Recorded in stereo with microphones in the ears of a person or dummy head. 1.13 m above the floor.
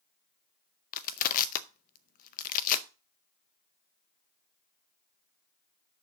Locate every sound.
0.9 s crushing: 45° left (ahead or behind), 0.6 m